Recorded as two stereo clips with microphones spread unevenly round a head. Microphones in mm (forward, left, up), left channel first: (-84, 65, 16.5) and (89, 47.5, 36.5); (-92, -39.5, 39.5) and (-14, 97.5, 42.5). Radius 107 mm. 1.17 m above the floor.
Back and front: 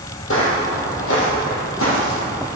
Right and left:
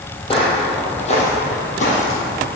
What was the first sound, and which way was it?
Footsteps, 175° right.